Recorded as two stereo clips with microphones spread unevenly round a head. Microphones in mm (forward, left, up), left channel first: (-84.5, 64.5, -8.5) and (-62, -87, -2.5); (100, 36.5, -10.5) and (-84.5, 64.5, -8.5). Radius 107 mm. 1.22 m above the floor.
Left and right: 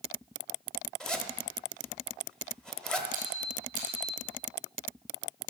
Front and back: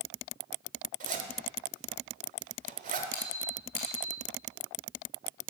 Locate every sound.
1.0 s a zipper: 175° right, 1.2 m
3.1 s a squeak: 25° right, 1.9 m